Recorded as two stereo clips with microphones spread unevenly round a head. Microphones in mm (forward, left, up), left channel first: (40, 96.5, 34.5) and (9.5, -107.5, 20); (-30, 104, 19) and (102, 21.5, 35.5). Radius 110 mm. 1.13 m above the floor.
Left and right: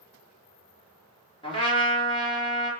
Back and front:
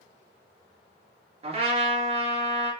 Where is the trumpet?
15° left, 4.5 m.